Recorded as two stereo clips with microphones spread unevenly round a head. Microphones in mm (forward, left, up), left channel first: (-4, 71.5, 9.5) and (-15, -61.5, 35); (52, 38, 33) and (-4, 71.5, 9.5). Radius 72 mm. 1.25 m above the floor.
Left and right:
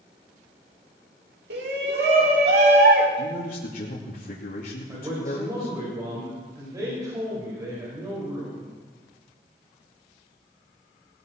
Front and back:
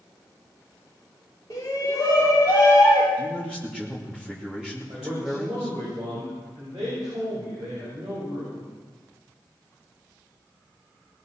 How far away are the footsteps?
I don't hear footsteps.